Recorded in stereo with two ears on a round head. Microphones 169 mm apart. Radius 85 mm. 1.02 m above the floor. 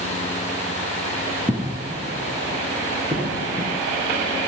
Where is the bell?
I don't hear a bell.